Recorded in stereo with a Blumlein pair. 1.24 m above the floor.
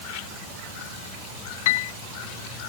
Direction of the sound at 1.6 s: 50° left.